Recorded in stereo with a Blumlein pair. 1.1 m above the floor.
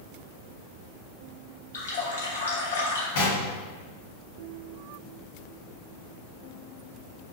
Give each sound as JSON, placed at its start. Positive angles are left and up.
{"t": 1.7, "sound": "a running tap", "azimuth_deg": 65, "distance_m": 0.9}
{"t": 3.1, "sound": "knocking", "azimuth_deg": 55, "distance_m": 1.2}